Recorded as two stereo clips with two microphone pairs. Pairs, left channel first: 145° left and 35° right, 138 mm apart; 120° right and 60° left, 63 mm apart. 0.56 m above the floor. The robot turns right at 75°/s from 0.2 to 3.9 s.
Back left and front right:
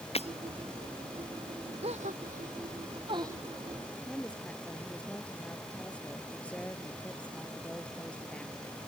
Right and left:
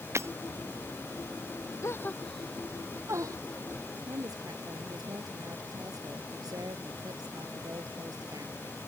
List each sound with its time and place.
0.1 s breaking glass: 105° left; by 0.3 s 110° left
1.8 s a gasp: 80° right; by 3.4 s 35° left
4.0 s a woman speaking: 65° left